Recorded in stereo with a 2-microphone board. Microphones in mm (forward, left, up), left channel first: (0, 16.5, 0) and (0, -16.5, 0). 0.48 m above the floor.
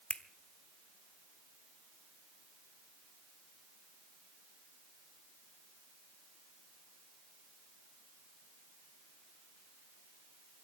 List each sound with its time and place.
0.1 s a finger snap: 35° left (ahead or behind), 1.0 m